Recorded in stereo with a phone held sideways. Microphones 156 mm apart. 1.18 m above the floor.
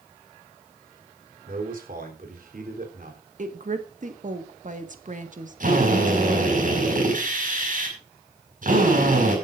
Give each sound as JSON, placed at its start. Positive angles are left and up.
{"t": 1.5, "sound": "a man speaking", "side_deg": -70, "distance_m": 3.5}
{"t": 3.4, "sound": "a woman speaking", "side_deg": -55, "distance_m": 1.6}
{"t": 5.6, "sound": "a drill", "side_deg": -60, "distance_m": 5.5}